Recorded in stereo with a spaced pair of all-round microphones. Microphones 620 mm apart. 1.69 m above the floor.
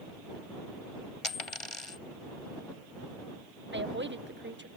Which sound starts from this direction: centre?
A woman speaking, at 3.7 s.